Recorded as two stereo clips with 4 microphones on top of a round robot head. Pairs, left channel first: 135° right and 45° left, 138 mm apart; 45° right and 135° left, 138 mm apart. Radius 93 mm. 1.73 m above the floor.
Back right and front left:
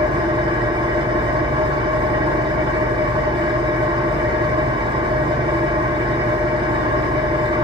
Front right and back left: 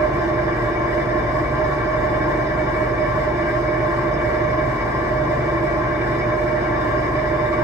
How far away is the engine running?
About 0.8 m.